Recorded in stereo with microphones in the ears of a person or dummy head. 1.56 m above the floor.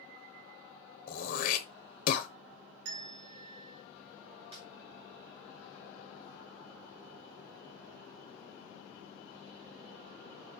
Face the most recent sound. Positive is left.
turn(degrees=-35)  # may be behind; listen again after turning